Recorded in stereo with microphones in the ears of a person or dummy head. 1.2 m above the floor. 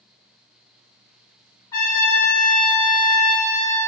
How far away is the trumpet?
About 2.0 m.